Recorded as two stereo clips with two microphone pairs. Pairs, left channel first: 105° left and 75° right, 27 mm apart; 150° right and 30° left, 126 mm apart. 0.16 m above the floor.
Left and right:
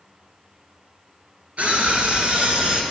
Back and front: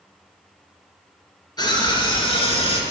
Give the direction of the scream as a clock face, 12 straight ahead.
3 o'clock.